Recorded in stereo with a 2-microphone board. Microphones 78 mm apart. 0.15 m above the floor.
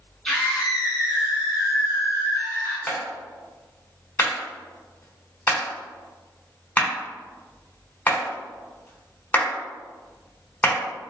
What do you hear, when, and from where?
0.2 s a scream: 5° left (ahead or behind), 1.2 m; by 2.8 s 45° right (ahead or behind), 2.5 m
2.9 s a clap: 20° left (ahead or behind), 1.0 m